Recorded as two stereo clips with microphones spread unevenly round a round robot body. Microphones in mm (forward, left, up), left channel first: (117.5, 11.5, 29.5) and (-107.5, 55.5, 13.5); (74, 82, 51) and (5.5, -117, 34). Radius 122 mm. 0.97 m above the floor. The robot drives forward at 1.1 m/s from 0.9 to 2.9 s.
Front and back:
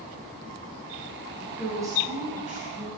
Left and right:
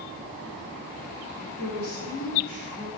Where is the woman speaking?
80° left, 1.9 m; by 2.9 s 125° left, 2.5 m.